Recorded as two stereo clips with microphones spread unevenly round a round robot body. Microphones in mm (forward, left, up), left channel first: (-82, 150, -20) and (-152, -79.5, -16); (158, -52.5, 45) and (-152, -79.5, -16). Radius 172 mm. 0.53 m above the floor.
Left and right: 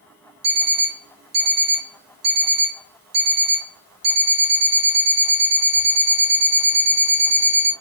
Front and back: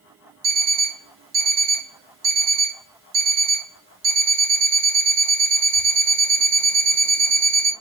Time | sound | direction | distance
0.4 | an alarm clock | 125° right | 1.2 m